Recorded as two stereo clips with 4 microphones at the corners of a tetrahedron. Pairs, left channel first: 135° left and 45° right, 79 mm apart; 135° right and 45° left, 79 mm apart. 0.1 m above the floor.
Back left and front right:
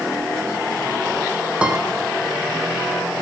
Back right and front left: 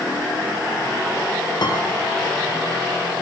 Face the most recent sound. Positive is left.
turn(degrees=-120)